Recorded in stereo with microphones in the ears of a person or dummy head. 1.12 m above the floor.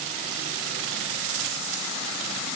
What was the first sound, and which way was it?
Only background noise.